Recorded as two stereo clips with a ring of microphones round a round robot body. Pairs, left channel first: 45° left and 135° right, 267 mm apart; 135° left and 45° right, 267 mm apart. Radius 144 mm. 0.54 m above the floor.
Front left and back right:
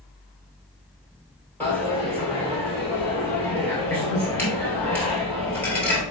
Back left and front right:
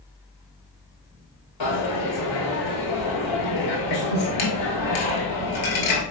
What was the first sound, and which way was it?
A dropped coin, 130° left.